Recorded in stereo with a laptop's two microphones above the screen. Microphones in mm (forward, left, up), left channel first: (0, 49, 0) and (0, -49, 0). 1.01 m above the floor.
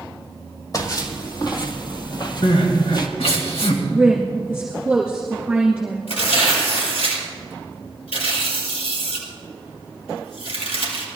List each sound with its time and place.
0.7 s footsteps: 40° left (ahead or behind), 1.9 m; by 3.1 s 45° left (ahead or behind), 1.5 m
2.4 s crying: 80° left, 2.5 m
3.9 s a woman speaking: 10° right (ahead or behind), 2 m
6.1 s tearing paper: 80° left, 5 m